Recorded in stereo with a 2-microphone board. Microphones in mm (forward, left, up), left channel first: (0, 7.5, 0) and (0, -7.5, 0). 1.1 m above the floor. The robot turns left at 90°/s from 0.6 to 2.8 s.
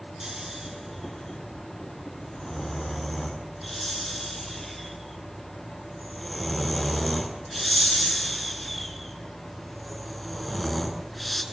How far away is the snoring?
About 7 m.